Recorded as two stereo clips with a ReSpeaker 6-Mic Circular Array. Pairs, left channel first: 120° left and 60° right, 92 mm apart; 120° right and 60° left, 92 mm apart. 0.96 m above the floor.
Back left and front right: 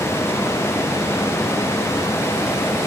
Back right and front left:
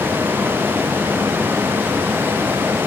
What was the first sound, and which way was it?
Only background noise.